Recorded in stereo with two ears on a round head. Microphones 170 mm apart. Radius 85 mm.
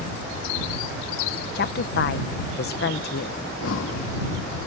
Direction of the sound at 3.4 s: 75° left (ahead or behind).